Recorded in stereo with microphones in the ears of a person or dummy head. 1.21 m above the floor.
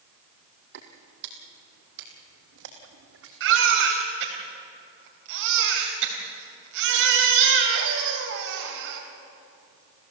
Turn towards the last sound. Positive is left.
turn(degrees=-75)  # may be behind; listen again after turning